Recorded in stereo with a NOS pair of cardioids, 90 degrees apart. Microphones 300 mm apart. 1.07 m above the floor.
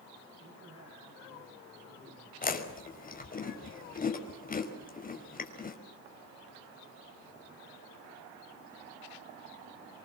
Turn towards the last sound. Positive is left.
turn(degrees=25)